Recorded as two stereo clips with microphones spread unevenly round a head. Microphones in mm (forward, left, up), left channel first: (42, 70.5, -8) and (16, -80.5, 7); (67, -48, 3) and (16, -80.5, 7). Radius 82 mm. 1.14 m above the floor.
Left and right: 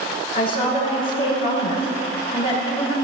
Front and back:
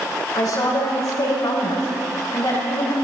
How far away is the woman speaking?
About 5 m.